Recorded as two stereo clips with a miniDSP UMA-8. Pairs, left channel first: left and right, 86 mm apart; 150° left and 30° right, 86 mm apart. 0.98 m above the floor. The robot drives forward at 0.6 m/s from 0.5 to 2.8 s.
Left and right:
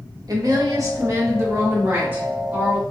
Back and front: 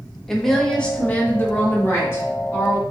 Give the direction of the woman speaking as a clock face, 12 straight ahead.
4 o'clock.